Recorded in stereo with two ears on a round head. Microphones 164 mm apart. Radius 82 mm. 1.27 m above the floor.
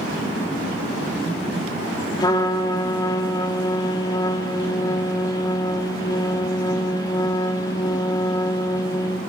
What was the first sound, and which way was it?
A trumpet, 20° left (ahead or behind).